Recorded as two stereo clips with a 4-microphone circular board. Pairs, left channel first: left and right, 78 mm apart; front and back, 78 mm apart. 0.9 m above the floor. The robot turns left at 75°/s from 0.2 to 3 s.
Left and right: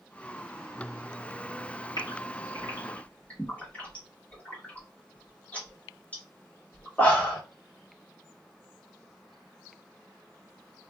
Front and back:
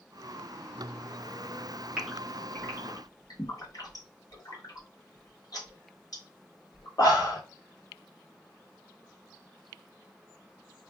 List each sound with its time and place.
2.0 s a gasp: 100° left, 1.3 m; by 7.4 s 25° left, 1.3 m